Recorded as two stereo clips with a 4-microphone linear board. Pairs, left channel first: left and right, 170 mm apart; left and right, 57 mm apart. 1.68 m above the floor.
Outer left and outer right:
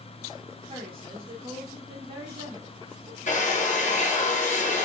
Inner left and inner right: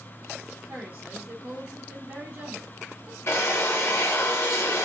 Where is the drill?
45° left (ahead or behind), 0.6 m.